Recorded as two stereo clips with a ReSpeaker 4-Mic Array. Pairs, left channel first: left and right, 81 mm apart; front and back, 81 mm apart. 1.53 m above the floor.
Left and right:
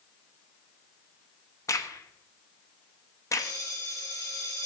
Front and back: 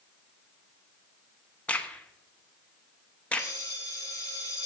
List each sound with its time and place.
1.7 s a crack: 70° left, 1.0 m
3.4 s a bell: 50° left, 3.5 m